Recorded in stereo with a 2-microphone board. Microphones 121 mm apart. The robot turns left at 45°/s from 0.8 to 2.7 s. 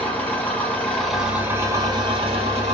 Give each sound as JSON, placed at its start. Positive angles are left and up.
{"t": 0.0, "sound": "an engine running", "azimuth_deg": 15, "distance_m": 1.1}